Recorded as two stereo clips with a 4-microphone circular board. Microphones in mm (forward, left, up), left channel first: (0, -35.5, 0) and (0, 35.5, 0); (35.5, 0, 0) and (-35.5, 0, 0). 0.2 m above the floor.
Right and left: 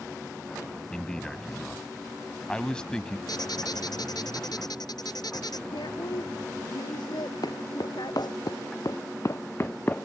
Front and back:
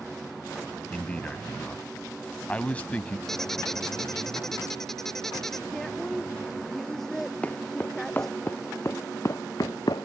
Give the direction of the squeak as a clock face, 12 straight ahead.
3 o'clock.